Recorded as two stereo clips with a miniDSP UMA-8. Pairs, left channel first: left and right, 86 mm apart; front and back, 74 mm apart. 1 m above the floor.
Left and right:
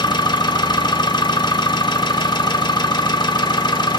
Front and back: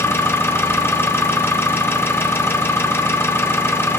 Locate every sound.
0.0 s an engine running: 60° left, 0.8 m